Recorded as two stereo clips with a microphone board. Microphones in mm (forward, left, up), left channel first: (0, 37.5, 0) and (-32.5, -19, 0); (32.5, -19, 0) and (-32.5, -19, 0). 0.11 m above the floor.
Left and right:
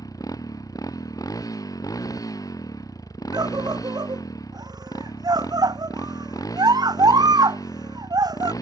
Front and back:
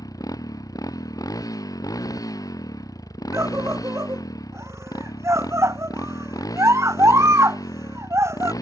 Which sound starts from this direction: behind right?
A scream, at 3.3 s.